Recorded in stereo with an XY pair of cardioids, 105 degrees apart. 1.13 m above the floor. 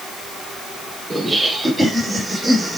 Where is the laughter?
15° right, 3 m; by 2.8 s 5° right, 2 m.